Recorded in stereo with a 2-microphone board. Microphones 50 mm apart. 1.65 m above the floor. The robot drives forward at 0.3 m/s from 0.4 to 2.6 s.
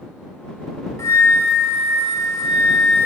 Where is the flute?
70° left (ahead or behind), 1.0 m; by 3.1 s 80° left, 1.0 m.